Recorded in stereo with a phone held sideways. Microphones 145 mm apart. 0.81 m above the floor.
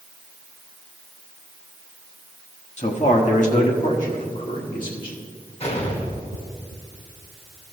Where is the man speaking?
50° left (ahead or behind), 1.0 m; by 5.2 s 70° left (ahead or behind), 2.5 m.